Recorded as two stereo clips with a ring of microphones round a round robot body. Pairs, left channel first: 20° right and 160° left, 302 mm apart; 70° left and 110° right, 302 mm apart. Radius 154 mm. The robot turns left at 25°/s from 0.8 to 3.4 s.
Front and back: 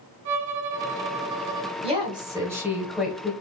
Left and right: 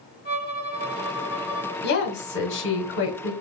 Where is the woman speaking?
100° left, 1.1 m; by 3.3 s 60° left, 1.1 m.